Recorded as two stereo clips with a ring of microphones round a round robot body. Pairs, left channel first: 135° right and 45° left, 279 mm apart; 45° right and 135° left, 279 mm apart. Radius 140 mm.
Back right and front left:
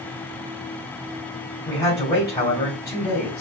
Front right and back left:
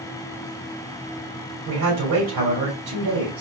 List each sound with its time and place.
1.6 s a man speaking: 150° left, 2 m